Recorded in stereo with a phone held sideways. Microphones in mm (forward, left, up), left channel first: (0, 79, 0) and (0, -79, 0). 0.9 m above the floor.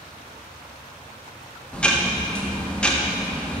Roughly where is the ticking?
Centre.